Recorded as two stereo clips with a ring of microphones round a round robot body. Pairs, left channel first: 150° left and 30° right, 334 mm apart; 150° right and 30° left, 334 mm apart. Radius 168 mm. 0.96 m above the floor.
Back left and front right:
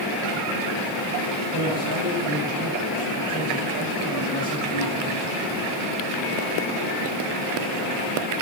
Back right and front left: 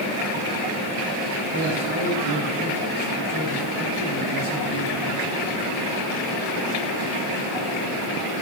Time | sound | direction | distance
1.5 | a man speaking | 85° left | 7 m